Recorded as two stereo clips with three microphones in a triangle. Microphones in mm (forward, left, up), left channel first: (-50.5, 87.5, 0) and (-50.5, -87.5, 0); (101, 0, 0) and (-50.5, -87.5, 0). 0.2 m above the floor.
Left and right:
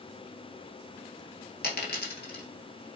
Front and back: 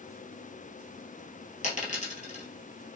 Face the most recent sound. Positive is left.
turn(degrees=75)